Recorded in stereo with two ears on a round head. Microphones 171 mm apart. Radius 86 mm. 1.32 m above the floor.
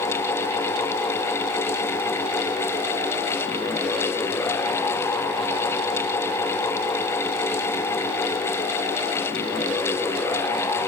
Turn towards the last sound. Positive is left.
No sound to turn to.